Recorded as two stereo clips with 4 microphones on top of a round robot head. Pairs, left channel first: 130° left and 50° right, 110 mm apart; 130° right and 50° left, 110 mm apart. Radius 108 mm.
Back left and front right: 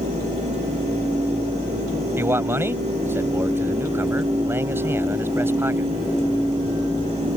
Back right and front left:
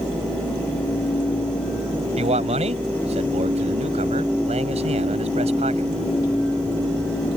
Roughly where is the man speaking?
Ahead left.